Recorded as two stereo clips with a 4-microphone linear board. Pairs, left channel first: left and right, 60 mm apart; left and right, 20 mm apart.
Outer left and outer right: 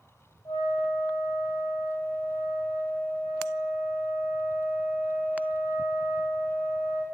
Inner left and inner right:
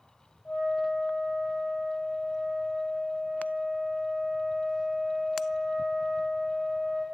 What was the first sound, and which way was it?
A flute, 85° left.